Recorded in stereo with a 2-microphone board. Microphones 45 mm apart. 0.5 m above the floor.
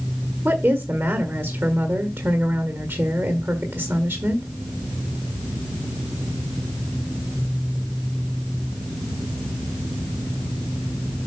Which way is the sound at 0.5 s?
55° right (ahead or behind).